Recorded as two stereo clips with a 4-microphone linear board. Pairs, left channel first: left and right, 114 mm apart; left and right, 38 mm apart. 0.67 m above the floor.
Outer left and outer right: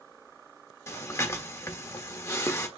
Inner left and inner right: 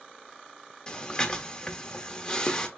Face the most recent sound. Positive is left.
turn(degrees=25)  # may be behind; listen again after turning